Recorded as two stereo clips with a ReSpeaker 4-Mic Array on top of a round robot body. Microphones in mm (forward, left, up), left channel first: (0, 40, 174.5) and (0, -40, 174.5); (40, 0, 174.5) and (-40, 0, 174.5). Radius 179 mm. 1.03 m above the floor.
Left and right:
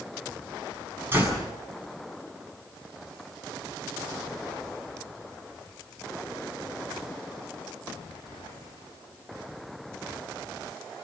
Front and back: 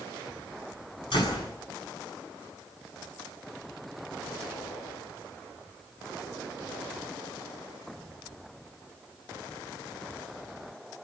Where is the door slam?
25° right, 7.5 m.